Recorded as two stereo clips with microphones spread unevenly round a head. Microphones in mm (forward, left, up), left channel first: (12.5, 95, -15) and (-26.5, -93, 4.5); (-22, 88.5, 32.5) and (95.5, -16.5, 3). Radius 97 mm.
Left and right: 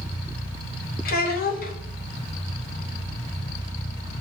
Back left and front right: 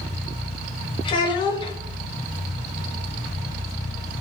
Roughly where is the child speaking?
Left.